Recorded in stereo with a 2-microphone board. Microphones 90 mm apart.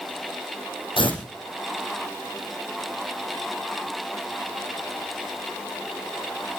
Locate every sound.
1.0 s tearing paper: 70° left (ahead or behind), 6 m